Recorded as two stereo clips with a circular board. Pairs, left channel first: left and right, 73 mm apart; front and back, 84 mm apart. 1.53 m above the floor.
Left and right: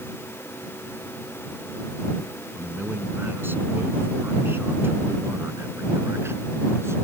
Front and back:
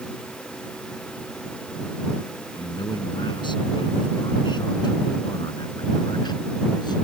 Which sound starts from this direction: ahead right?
A man speaking, at 2.5 s.